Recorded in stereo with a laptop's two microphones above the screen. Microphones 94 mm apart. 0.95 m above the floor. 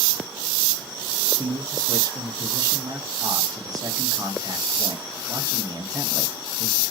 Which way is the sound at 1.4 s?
40° right (ahead or behind).